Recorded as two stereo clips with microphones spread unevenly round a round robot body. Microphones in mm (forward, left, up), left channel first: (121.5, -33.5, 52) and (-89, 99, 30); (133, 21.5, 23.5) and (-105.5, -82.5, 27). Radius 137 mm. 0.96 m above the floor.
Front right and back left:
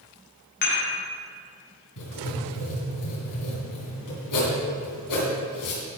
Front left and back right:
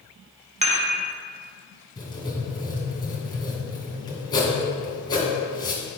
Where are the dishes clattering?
90° right, 1.6 m.